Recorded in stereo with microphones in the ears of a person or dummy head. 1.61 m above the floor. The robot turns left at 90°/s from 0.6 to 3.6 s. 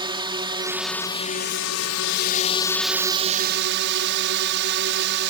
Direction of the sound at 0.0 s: 155° right.